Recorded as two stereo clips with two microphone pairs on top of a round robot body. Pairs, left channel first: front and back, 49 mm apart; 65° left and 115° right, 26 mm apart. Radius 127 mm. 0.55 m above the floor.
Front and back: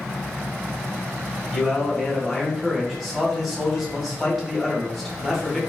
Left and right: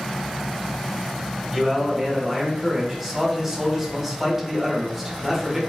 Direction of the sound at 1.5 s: 130° right.